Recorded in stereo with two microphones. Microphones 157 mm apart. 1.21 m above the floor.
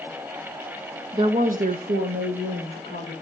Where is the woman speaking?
25° right (ahead or behind), 0.8 m; by 3.1 s 85° right, 3 m.